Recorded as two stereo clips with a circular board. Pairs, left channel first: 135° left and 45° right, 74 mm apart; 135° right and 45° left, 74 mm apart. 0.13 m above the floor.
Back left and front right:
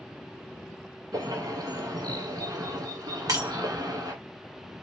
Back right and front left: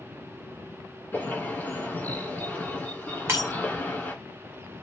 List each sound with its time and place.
1.1 s a bird: 70° right, 2.5 m
3.3 s breaking glass: 15° right, 1.4 m